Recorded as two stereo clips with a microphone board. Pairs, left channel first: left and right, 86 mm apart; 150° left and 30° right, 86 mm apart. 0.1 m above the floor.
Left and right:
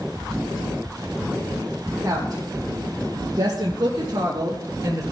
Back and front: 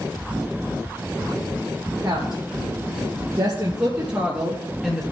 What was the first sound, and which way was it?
A woman speaking, 45° right.